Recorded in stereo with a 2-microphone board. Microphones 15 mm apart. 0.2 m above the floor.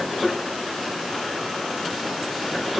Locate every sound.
Only background noise.